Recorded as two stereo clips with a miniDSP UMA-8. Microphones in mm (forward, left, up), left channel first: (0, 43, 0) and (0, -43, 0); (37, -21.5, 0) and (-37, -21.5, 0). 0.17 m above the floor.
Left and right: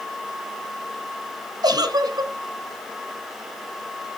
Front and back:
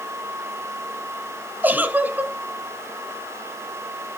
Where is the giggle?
115° right, 0.9 m.